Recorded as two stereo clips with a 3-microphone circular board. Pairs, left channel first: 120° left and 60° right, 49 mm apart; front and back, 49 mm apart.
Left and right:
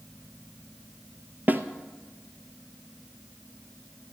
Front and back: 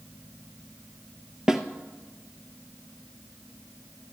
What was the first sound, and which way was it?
A snare drum, 105° right.